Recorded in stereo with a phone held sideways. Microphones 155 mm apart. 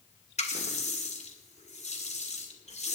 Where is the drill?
No drill in this recording.